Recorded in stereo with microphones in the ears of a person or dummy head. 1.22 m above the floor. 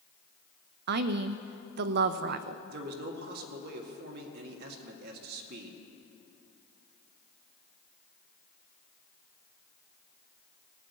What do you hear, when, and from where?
0.9 s a woman speaking: 60° right (ahead or behind), 0.6 m
2.7 s a man speaking: 50° right (ahead or behind), 1.8 m